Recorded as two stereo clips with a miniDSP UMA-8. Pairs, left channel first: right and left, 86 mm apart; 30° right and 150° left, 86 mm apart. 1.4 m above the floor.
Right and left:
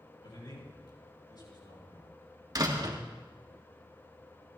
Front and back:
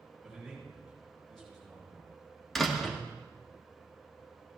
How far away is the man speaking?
About 7.5 m.